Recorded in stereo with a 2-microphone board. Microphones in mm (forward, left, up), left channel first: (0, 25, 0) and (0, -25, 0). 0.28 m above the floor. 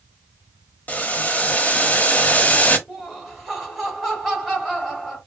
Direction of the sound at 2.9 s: Centre (ahead or behind).